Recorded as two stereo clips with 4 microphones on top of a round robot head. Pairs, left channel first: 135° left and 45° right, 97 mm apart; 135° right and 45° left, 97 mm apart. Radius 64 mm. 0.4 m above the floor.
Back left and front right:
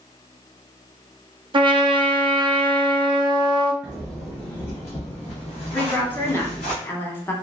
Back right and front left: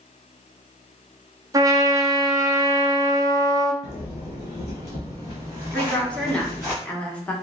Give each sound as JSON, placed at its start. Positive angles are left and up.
{"t": 1.5, "sound": "a trumpet", "azimuth_deg": -10, "distance_m": 0.5}
{"t": 3.8, "sound": "footsteps", "azimuth_deg": -125, "distance_m": 1.1}
{"t": 5.7, "sound": "a woman speaking", "azimuth_deg": 165, "distance_m": 0.8}